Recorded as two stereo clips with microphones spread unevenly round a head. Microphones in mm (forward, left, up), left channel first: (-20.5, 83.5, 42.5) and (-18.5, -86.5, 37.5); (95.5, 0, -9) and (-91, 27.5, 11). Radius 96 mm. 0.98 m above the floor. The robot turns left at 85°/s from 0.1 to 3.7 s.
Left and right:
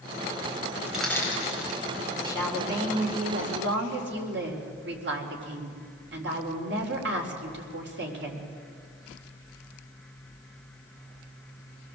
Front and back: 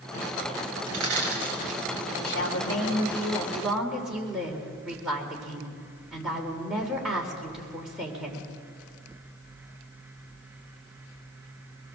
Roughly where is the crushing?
Behind.